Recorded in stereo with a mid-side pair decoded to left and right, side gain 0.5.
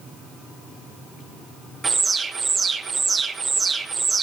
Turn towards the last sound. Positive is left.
turn(degrees=-30)